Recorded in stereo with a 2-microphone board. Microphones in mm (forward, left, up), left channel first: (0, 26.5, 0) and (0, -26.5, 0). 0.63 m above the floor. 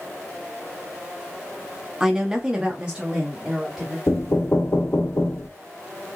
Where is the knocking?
55° left (ahead or behind), 1.0 m.